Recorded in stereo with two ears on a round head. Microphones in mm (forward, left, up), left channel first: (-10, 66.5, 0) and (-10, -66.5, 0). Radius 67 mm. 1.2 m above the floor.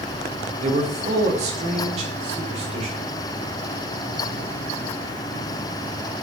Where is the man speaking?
50° right (ahead or behind), 1.6 m.